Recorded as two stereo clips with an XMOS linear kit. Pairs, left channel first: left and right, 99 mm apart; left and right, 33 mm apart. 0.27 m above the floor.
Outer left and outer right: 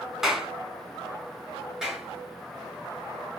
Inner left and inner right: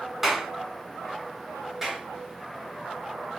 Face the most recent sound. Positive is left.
turn(degrees=-5)  # may be behind; listen again after turning